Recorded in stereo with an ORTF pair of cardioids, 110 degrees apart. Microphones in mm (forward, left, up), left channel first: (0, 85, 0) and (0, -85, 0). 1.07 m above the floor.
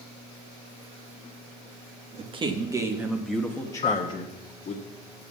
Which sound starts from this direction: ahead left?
A piano, at 3.8 s.